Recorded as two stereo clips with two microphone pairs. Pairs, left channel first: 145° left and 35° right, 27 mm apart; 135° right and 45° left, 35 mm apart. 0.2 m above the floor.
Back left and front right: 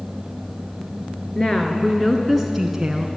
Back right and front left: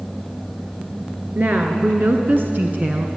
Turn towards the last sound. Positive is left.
turn(degrees=20)